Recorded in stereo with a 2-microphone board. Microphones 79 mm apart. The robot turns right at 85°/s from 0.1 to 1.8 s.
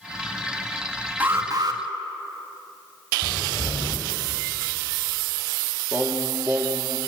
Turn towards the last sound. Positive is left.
turn(degrees=-30)  # may be behind; listen again after turning